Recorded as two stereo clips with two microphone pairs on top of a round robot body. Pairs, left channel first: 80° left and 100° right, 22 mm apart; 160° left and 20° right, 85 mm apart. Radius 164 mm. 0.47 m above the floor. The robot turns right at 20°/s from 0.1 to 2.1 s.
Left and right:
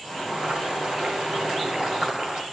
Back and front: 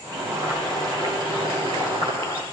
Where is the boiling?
80° right, 3 m; by 2.4 s 45° right, 3 m.